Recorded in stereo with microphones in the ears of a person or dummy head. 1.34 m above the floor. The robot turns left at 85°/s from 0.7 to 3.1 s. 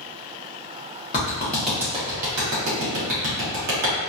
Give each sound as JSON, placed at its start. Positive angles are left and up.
{"t": 1.1, "sound": "a clap", "side_deg": 40, "distance_m": 1.2}